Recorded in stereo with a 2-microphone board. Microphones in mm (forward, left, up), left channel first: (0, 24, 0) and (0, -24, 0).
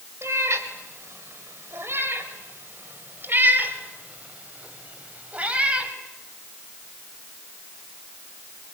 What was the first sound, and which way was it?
A cat meowing, 75° right (ahead or behind).